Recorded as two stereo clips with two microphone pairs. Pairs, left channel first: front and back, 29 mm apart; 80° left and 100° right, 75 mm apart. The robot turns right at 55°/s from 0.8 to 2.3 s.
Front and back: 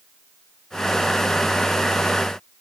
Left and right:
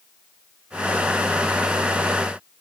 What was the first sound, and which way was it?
Only background noise.